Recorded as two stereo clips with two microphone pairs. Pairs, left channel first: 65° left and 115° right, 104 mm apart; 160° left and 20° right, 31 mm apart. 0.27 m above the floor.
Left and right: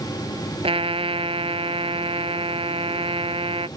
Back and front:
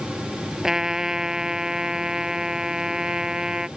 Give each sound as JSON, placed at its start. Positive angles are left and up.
{"t": 0.6, "sound": "a trumpet", "azimuth_deg": -90}